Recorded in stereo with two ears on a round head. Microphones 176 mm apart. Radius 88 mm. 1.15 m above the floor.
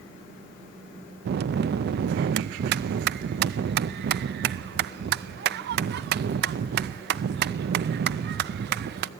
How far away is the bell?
About 0.5 m.